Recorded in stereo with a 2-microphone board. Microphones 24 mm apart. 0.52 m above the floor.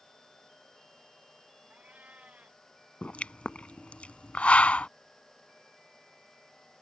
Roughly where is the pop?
Left.